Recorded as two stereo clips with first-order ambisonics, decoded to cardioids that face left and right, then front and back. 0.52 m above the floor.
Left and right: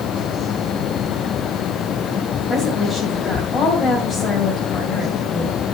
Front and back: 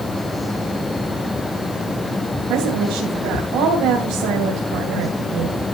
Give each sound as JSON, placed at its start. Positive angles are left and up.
{"t": 2.5, "sound": "a woman speaking", "azimuth_deg": 170, "distance_m": 2.5}